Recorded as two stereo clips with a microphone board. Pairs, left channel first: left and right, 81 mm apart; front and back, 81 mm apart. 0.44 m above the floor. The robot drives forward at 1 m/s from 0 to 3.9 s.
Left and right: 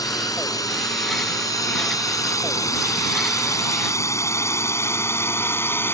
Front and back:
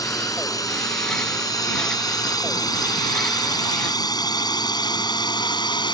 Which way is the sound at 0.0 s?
45° left.